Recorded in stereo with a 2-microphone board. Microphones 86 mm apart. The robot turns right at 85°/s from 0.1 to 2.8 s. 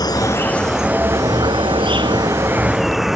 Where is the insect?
125° left; by 3.2 s 5° right.